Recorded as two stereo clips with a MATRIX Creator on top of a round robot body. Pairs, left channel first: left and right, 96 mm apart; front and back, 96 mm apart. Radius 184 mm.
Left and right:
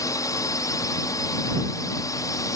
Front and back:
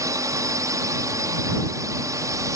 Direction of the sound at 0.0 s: 135° left.